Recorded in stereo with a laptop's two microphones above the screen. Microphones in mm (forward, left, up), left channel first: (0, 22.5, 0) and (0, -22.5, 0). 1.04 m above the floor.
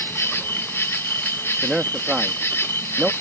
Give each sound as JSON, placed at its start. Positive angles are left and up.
{"t": 0.0, "sound": "an insect", "side_deg": 65}
{"t": 1.6, "sound": "a man speaking", "side_deg": -15}